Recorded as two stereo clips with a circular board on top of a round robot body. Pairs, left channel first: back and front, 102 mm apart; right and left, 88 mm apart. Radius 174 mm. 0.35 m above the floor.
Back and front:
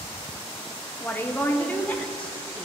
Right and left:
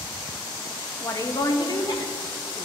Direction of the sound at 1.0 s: 120° right.